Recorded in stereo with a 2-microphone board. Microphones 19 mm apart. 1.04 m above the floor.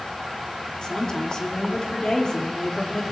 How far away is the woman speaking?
About 3 m.